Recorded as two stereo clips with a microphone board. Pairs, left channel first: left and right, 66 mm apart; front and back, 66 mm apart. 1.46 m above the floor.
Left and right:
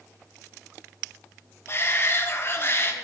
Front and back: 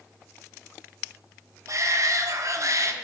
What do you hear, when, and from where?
1.7 s a shout: 140° left, 1.1 m